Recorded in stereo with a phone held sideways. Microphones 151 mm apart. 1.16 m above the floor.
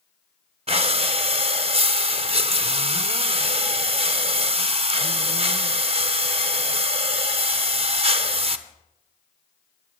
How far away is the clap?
No clap in this recording.